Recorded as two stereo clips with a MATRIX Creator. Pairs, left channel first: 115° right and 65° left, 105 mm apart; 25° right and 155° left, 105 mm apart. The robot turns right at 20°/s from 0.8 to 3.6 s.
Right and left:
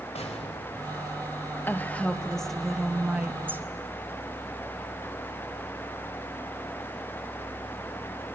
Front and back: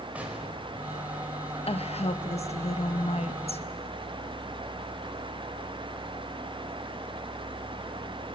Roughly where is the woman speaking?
Ahead right.